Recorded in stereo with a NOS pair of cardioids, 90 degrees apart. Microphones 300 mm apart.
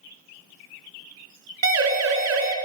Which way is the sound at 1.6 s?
65° right.